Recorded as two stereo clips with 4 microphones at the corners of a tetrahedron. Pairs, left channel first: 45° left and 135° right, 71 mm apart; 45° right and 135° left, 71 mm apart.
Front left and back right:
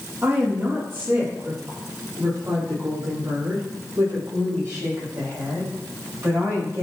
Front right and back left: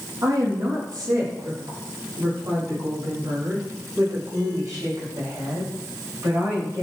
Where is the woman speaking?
165° left, 4.5 m; by 6.8 s straight behind, 10 m.